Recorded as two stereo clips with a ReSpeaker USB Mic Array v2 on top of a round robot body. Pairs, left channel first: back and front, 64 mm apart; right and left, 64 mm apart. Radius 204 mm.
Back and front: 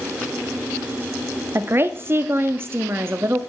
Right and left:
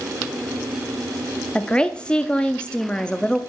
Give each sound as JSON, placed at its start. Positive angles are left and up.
{"t": 1.6, "sound": "a woman speaking", "azimuth_deg": -25, "distance_m": 0.9}